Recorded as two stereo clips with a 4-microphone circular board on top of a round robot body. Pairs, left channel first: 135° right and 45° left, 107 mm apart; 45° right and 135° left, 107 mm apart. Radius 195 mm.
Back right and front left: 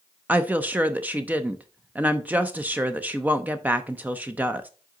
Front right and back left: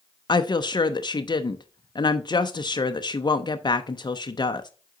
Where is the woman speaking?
25° right, 0.7 m.